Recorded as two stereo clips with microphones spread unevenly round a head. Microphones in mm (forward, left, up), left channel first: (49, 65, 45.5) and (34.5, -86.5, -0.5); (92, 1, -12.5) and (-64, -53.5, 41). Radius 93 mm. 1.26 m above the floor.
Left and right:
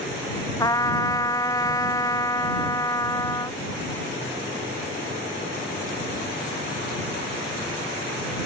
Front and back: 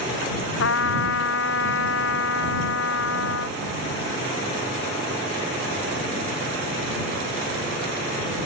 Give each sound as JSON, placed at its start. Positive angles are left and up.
{"t": 0.6, "sound": "a trumpet", "azimuth_deg": 20}